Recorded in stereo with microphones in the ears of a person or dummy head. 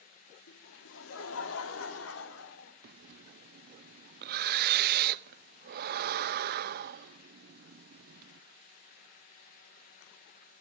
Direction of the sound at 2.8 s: 55° right (ahead or behind).